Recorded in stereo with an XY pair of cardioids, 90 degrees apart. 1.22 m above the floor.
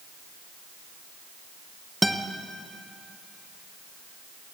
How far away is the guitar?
About 0.8 m.